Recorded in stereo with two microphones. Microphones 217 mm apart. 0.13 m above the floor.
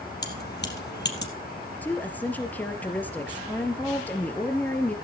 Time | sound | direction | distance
0.2 | keys jangling | 50° left (ahead or behind) | 3 m
1.8 | a woman speaking | 10° left (ahead or behind) | 2.5 m